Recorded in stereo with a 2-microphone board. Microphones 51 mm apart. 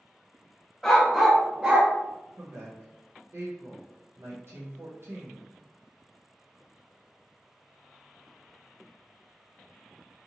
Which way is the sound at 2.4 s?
60° right (ahead or behind).